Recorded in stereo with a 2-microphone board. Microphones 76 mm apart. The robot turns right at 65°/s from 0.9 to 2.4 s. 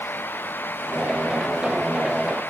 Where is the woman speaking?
No woman speaking in this recording.